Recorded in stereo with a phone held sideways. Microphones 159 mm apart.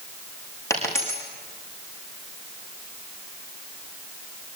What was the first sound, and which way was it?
A dropped coin, 20° left (ahead or behind).